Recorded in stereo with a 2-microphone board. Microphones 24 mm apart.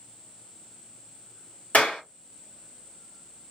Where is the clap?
75° left (ahead or behind), 2.5 m.